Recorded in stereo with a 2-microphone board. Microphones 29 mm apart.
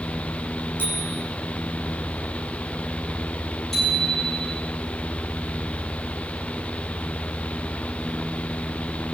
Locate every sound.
0.8 s a bicycle bell: 90° left, 5.5 m
3.7 s a bicycle bell: 10° left (ahead or behind), 10 m